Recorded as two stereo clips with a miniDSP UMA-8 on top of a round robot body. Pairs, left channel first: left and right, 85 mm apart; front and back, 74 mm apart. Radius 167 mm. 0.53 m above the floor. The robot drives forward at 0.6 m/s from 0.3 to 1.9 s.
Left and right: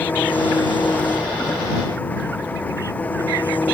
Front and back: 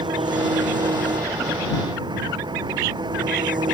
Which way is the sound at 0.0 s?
160° left.